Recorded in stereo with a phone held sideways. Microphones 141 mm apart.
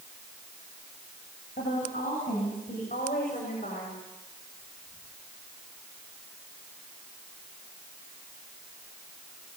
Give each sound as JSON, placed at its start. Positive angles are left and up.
{"t": 1.6, "sound": "a woman speaking", "side_deg": 80, "distance_m": 9.0}